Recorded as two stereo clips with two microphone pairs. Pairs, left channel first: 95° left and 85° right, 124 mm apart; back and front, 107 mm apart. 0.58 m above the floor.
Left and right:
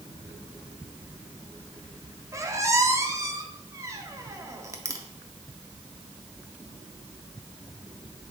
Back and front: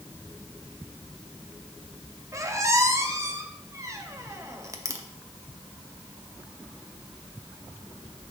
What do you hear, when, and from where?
2.3 s a squeak: 40° right, 0.5 m